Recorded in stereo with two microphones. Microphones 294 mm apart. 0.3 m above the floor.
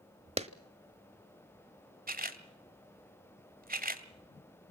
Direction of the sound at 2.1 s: 30° right (ahead or behind).